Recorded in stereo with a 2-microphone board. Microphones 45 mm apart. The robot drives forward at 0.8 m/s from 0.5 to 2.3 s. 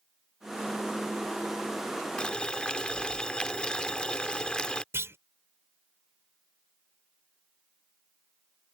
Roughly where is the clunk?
Right.